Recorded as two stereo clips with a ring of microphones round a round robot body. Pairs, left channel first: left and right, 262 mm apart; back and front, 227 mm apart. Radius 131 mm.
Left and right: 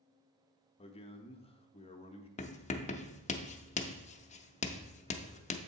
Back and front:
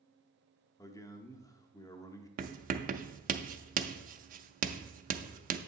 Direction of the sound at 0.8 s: 120° left.